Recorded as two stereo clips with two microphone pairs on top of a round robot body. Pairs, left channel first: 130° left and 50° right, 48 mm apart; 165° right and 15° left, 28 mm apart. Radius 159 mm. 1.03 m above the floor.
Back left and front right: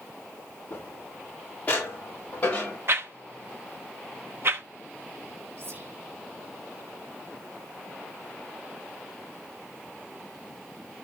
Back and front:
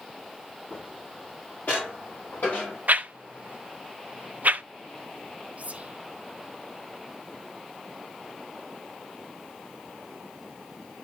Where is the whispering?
10° right, 1.4 m.